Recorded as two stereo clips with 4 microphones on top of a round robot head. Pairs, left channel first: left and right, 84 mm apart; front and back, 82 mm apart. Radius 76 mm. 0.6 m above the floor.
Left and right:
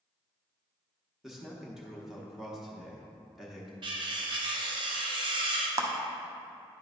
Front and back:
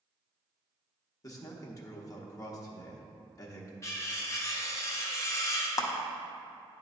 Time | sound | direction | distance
1.2 | a man speaking | 5° right | 1.1 m
3.8 | cutlery clinking | 60° right | 0.9 m
5.8 | a clap | 40° right | 0.8 m